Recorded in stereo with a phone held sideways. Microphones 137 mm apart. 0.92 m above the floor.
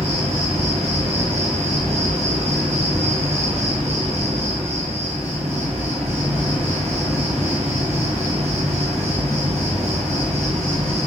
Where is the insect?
50° right (ahead or behind), 0.9 m.